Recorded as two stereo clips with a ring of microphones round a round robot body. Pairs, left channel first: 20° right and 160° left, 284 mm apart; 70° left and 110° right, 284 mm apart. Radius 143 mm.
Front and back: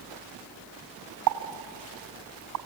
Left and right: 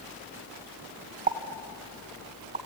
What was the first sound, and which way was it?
A pop, 175° right.